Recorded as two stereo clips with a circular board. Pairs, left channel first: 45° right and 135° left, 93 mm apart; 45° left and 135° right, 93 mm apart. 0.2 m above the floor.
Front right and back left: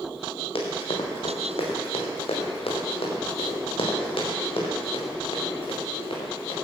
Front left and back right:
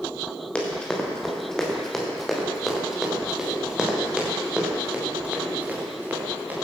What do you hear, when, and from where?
0.6 s running footsteps: 35° right, 4 m; by 6.5 s 65° right, 6 m